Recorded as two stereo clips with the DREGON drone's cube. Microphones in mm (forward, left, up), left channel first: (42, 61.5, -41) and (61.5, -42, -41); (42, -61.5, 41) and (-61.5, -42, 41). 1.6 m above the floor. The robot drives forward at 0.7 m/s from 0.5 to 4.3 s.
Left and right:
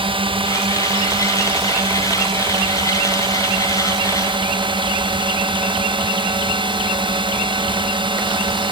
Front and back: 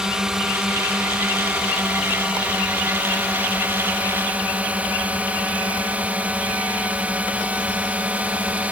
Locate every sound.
0.0 s a drone: 105° right; by 8.7 s 115° right